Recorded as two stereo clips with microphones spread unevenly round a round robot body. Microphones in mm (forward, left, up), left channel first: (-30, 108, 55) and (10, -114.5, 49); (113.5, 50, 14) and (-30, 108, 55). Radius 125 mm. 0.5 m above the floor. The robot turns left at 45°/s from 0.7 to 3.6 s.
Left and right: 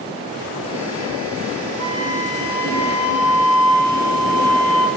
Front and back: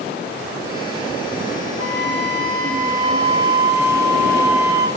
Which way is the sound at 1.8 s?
175° left.